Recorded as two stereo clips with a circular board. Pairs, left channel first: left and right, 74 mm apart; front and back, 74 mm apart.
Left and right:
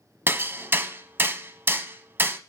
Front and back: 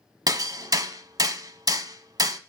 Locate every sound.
0.3 s hammering: 150° right, 0.7 m